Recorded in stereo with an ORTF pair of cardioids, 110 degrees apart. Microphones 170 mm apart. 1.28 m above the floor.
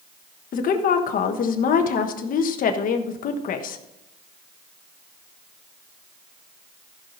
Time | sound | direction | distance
0.5 | a woman speaking | 55° left | 1.3 m